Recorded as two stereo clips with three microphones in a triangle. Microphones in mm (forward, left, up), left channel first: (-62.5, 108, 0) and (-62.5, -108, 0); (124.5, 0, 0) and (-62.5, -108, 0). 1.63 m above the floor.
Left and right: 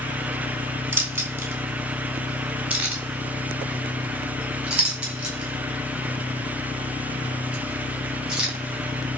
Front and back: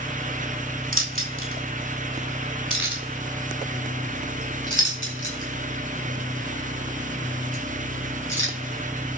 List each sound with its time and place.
0.9 s keys jangling: 170° right, 2.5 m; by 9.2 s 175° right, 7 m